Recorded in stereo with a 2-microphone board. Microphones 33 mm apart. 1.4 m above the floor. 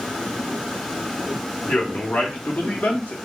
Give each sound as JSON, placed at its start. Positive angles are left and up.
{"t": 1.7, "sound": "a man speaking", "side_deg": 60, "distance_m": 1.1}